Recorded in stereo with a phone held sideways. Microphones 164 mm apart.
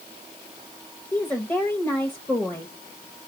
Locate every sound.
1.1 s a woman speaking: 10° left (ahead or behind), 1.1 m